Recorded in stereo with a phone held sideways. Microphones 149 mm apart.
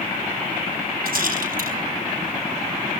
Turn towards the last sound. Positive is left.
turn(degrees=-85)